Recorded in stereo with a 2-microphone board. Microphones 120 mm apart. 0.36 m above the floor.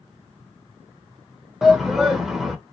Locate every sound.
1.6 s a shout: 5° right (ahead or behind), 0.8 m